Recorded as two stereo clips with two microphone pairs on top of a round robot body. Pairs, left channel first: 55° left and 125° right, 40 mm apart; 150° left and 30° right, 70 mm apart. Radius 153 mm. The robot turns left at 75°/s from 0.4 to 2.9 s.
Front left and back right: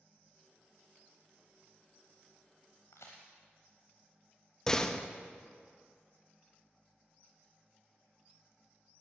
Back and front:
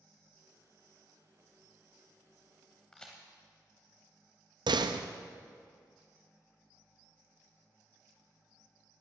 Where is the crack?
55° left, 0.7 m.